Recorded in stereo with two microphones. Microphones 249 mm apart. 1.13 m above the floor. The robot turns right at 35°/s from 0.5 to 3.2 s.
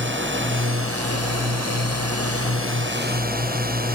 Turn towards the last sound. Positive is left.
turn(degrees=-35)